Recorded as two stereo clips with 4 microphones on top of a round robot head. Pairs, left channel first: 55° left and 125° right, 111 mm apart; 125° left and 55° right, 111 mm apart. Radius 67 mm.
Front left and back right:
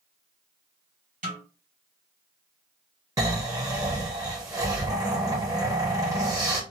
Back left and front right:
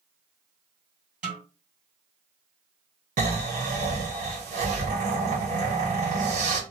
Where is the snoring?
65° right, 1.1 m.